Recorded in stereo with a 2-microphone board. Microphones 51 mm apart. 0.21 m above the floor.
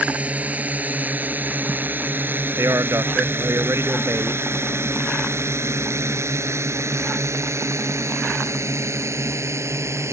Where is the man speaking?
70° right (ahead or behind).